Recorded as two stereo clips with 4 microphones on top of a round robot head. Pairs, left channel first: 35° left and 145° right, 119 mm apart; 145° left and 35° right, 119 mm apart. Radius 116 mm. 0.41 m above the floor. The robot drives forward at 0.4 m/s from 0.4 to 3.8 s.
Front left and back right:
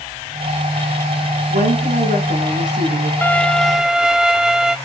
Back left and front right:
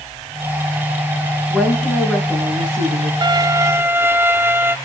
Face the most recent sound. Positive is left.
turn(degrees=-70)